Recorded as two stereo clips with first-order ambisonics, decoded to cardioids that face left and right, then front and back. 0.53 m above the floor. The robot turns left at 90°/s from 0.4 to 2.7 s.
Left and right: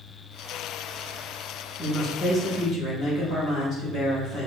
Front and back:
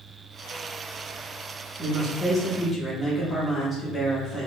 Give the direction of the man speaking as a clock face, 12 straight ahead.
7 o'clock.